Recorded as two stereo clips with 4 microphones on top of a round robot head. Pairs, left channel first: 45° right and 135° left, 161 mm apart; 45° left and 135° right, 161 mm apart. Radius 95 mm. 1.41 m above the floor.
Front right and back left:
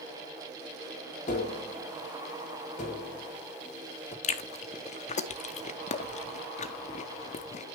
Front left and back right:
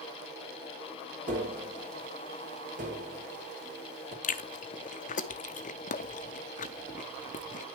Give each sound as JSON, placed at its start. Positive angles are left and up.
{"t": 1.3, "sound": "tapping", "azimuth_deg": -95, "distance_m": 3.0}
{"t": 4.2, "sound": "chewing", "azimuth_deg": 0, "distance_m": 0.8}